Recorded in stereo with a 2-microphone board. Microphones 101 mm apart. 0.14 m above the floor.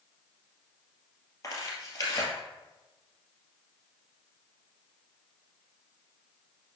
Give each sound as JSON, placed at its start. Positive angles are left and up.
{"t": 1.4, "sound": "tearing paper", "side_deg": 35, "distance_m": 2.5}